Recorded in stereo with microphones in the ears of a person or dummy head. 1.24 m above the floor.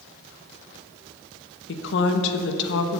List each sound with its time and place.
1.7 s a woman speaking: 70° left (ahead or behind), 1.2 m